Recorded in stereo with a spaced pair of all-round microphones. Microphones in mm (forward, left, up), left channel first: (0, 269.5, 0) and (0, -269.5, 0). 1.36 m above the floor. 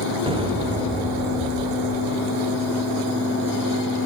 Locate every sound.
0.3 s an explosion: 10° right (ahead or behind), 5 m